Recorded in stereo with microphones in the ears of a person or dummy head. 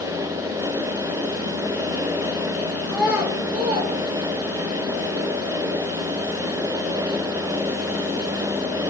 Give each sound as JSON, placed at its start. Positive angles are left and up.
{"t": 2.9, "sound": "a child speaking", "side_deg": 5, "distance_m": 0.8}